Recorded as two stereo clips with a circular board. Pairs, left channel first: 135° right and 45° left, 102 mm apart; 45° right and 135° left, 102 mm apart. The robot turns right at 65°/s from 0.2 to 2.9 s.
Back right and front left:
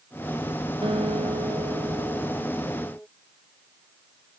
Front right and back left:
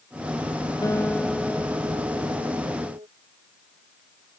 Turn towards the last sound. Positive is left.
turn(degrees=145)